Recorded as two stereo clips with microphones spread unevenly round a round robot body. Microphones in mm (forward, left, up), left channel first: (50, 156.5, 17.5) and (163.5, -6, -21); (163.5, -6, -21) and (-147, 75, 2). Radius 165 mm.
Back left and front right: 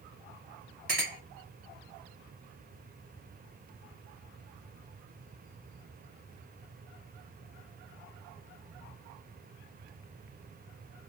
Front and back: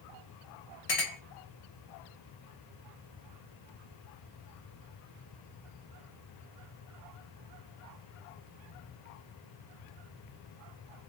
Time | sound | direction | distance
0.9 | a clink | 15° right | 2.5 m